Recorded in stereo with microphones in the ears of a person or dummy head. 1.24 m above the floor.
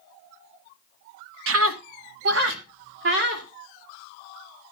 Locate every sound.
1.5 s a scream: 80° right, 1.3 m; by 3.5 s 55° right (ahead or behind), 3.5 m